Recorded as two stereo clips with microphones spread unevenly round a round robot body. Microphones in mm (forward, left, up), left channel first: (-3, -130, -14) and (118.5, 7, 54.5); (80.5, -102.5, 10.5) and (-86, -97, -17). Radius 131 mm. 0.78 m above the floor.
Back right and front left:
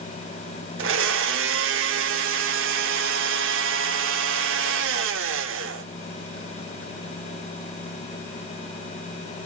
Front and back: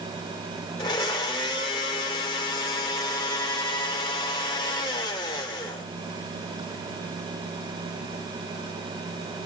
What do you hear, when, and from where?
0.8 s a blender: 70° left, 0.8 m